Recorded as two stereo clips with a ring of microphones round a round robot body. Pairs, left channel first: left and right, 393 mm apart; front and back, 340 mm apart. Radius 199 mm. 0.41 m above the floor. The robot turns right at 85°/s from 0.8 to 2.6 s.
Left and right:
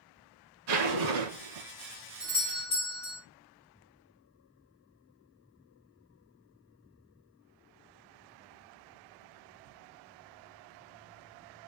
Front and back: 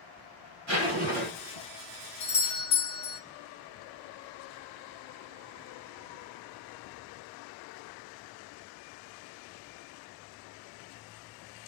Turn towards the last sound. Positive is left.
turn(degrees=30)